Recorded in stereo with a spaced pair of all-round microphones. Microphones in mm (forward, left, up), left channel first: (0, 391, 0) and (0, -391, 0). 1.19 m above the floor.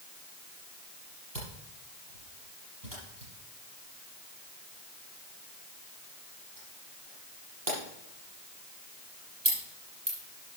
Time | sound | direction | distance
1.4 | a camera shutter | 70° right (ahead or behind) | 6 m